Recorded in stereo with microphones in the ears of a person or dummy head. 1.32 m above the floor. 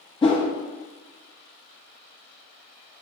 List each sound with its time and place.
0.2 s a whoosh: 25° left (ahead or behind), 0.5 m